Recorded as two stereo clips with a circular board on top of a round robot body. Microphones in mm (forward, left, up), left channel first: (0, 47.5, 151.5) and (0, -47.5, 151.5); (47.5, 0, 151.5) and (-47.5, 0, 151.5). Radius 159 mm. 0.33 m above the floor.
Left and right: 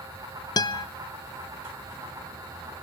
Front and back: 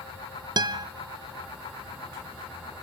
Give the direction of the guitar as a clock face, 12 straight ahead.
7 o'clock.